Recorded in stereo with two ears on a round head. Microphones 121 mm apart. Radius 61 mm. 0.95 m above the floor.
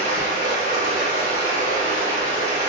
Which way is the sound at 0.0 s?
50° right (ahead or behind).